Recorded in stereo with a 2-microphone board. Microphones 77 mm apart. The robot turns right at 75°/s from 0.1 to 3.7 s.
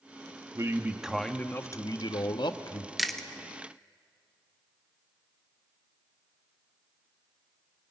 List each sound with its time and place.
0.6 s a man speaking: 45° right, 1.0 m; by 2.9 s 130° left, 1.0 m
3.0 s chewing: 5° right (ahead or behind), 1.0 m; by 3.3 s 10° left (ahead or behind), 1.0 m